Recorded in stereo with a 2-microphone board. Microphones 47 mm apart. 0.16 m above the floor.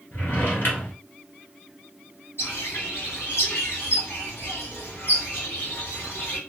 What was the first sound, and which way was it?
A drawer, 55° left (ahead or behind).